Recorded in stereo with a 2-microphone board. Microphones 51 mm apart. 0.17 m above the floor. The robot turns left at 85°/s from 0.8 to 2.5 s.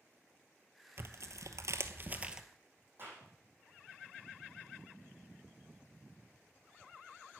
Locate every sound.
1.0 s tearing paper: 45° right (ahead or behind), 0.8 m; by 2.4 s 10° right (ahead or behind), 0.8 m
3.0 s a clap: 45° right (ahead or behind), 6 m